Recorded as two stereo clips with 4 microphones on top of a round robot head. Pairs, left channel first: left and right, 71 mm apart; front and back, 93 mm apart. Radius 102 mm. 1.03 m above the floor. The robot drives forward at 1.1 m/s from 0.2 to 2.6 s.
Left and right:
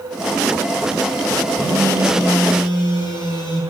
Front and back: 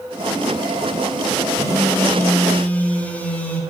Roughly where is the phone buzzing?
Ahead left.